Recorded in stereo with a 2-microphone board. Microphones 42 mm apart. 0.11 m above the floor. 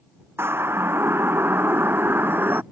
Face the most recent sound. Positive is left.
turn(degrees=-55)  # may be behind; listen again after turning